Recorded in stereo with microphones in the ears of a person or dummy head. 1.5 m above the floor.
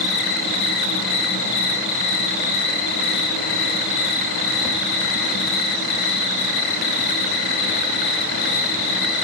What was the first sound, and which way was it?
An insect, 55° left (ahead or behind).